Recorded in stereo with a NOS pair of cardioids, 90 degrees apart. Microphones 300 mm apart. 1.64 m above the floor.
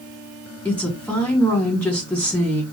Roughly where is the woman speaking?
Ahead.